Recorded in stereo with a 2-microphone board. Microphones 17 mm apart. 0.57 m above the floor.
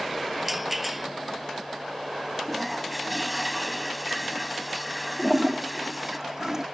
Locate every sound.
0.4 s a rattle: 15° right (ahead or behind)
2.5 s a toilet flushing: 5° right (ahead or behind)
5.2 s a toilet flushing: 35° right (ahead or behind)